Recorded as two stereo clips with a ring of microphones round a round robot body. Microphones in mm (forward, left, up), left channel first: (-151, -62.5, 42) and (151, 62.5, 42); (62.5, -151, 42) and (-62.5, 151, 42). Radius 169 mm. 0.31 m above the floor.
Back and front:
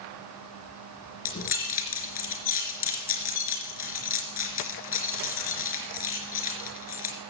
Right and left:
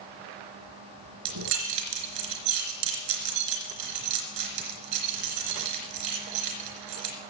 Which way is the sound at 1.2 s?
140° left.